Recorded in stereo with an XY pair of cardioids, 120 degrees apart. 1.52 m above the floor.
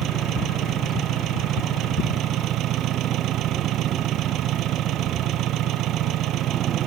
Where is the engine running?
70° right.